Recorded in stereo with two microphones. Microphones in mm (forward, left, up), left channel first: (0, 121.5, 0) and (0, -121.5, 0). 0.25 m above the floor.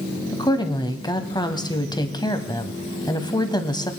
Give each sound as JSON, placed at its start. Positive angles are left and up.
{"t": 0.3, "sound": "a woman speaking", "side_deg": 20, "distance_m": 1.4}